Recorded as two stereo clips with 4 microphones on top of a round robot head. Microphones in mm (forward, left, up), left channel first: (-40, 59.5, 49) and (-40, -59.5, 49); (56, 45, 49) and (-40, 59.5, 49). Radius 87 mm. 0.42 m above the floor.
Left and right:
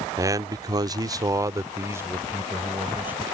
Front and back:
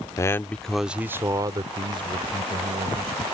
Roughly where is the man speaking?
Ahead right.